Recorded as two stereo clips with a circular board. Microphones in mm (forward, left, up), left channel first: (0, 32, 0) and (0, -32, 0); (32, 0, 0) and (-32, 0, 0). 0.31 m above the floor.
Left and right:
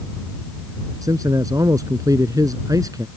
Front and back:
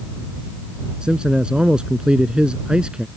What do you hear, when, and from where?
1.0 s a man speaking: 105° right